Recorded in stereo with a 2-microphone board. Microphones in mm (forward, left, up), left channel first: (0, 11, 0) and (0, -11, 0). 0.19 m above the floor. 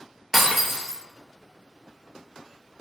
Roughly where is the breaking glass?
Centre.